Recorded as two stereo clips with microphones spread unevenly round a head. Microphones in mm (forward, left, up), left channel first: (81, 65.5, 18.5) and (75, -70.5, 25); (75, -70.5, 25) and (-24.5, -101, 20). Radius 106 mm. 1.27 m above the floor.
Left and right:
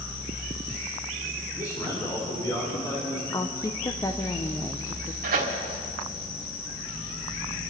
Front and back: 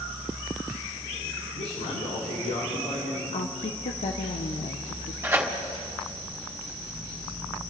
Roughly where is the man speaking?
Ahead left.